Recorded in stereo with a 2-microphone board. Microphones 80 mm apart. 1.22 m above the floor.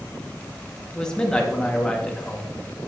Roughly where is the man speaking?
Centre.